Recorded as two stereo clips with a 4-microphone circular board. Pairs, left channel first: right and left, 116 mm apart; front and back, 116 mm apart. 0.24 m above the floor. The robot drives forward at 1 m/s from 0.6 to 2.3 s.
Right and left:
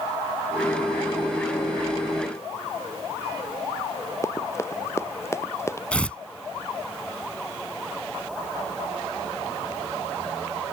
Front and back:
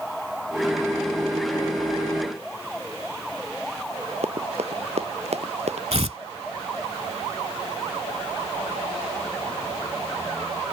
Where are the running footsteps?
155° right.